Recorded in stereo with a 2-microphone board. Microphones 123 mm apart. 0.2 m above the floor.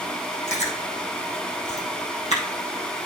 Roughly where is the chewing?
Left.